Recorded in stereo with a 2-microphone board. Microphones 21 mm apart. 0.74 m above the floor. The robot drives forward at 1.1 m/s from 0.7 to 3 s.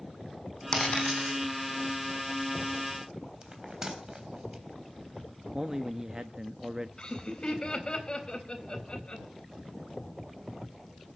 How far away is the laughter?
About 4 m.